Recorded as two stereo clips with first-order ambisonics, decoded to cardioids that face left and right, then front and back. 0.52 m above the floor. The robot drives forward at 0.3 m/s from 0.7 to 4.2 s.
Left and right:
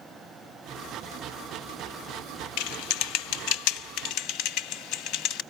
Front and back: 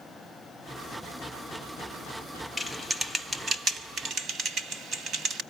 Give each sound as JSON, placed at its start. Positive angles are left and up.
{"t": 2.6, "sound": "typing on a keyboard", "azimuth_deg": 90, "distance_m": 0.7}